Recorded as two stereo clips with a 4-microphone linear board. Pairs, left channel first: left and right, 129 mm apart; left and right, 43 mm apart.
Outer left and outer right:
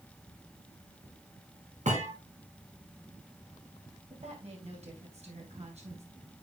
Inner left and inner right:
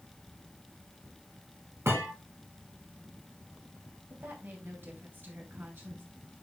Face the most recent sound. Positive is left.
turn(degrees=-60)  # may be behind; listen again after turning